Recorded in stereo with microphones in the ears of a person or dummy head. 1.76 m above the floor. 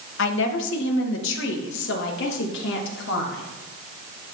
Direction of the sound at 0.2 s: 75° left (ahead or behind).